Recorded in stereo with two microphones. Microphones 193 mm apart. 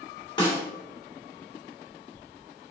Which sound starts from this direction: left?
A snare drum, at 0.4 s.